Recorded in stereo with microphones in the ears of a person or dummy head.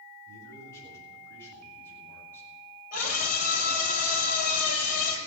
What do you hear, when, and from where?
0.3 s a man speaking: 20° left (ahead or behind), 9 m; by 2.5 s 15° left (ahead or behind), 7.5 m
2.9 s a scream: 55° left (ahead or behind), 7 m